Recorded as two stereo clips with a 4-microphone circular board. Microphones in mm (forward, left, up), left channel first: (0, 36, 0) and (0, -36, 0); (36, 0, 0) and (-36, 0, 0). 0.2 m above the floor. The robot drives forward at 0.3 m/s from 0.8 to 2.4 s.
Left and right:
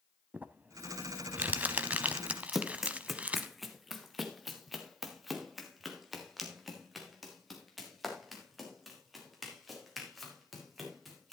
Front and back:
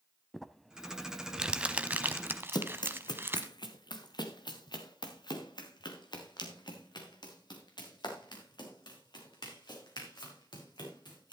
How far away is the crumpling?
About 0.7 m.